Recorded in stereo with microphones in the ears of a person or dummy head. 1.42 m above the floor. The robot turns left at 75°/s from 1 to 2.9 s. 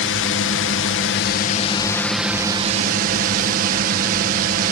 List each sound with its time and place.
0.0 s a drone: 85° left; by 4.7 s 55° right